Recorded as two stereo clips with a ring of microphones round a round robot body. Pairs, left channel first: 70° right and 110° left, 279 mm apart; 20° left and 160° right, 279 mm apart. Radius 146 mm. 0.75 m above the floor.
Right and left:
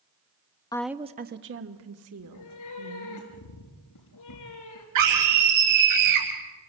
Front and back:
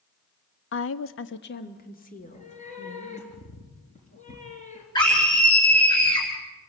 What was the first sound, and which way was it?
A woman speaking, 5° left.